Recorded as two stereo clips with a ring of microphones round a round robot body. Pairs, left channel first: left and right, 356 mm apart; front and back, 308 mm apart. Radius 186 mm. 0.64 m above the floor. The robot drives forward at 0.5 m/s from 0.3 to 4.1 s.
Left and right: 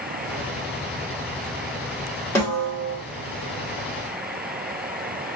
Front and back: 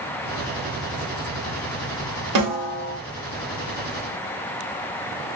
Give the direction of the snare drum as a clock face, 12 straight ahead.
6 o'clock.